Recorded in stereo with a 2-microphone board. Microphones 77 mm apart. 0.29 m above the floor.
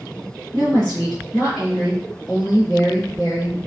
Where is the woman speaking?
10° left (ahead or behind), 2 m.